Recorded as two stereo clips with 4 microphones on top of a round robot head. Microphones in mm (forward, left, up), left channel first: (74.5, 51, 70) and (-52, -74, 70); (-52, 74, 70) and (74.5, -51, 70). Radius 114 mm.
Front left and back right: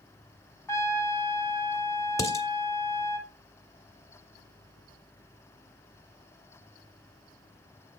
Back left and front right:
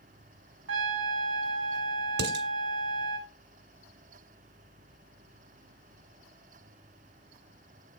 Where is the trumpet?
30° right, 1.2 m.